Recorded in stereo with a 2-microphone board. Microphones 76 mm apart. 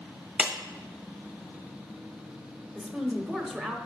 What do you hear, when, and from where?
0.4 s a clap: 15° right (ahead or behind), 1.3 m
2.8 s a woman speaking: centre (ahead or behind), 0.9 m